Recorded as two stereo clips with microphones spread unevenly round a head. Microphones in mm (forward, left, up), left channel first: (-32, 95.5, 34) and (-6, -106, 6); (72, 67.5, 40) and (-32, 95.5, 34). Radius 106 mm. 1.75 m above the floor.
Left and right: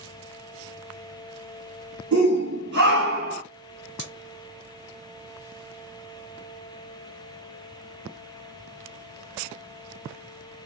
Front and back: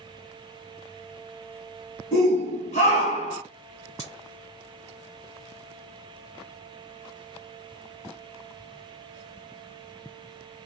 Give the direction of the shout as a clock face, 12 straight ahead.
1 o'clock.